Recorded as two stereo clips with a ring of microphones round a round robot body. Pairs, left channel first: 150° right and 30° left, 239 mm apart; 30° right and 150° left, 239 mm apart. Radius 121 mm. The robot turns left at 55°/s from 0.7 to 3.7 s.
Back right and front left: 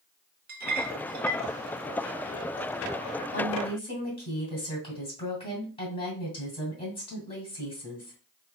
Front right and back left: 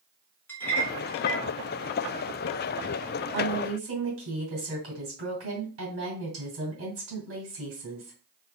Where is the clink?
45° left, 0.6 m; by 1.4 s 5° left, 0.6 m.